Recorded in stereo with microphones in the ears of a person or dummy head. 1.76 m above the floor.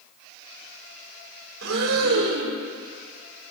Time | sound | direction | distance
1.6 | breathing | 80° right | 1.5 m